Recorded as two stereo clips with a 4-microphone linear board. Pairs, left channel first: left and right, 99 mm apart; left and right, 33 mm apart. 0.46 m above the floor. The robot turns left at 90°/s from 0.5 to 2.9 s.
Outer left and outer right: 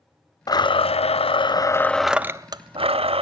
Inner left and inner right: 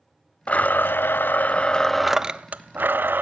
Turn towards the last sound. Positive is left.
turn(degrees=-75)